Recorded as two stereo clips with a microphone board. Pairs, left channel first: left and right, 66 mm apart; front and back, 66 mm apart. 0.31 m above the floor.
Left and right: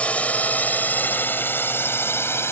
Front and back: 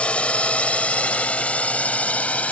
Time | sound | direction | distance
0.0 | a drone | 50° left | ?